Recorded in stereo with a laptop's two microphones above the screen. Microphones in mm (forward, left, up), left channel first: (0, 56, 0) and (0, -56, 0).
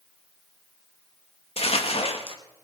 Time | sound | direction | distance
1.6 | crumpling | 60° left (ahead or behind) | 1.2 m